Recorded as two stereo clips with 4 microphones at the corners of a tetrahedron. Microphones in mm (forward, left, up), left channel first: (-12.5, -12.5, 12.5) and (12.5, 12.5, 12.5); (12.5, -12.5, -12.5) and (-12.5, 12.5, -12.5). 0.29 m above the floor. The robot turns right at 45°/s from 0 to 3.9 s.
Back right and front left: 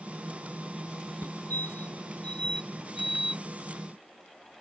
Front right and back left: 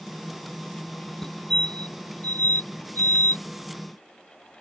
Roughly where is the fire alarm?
Behind right.